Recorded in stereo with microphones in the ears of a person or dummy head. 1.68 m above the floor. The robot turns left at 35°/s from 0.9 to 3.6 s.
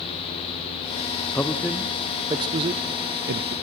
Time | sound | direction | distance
1.4 | a man speaking | 10° left (ahead or behind) | 0.7 m